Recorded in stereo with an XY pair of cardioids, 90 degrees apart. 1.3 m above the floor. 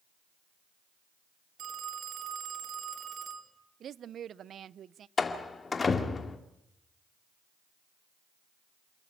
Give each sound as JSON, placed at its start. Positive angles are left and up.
{"t": 1.6, "sound": "a phone ringing", "azimuth_deg": -65, "distance_m": 2.5}
{"t": 3.8, "sound": "a woman speaking", "azimuth_deg": -65, "distance_m": 0.5}
{"t": 5.2, "sound": "a door slam", "azimuth_deg": 35, "distance_m": 2.0}